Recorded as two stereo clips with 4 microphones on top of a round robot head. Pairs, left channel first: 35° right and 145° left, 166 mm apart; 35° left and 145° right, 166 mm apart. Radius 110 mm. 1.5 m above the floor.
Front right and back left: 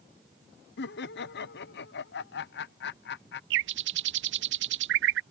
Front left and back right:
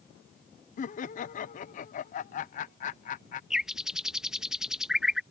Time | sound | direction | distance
0.8 | laughter | 10° right | ?
3.5 | a bird | 130° left | ?